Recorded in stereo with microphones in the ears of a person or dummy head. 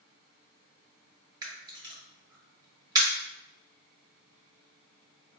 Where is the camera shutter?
20° right (ahead or behind), 1.0 m.